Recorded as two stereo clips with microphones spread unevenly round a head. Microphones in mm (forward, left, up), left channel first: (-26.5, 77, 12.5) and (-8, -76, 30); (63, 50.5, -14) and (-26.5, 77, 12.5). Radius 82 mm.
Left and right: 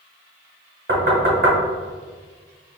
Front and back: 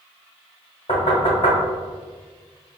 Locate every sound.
0.9 s knocking: 70° right, 1.2 m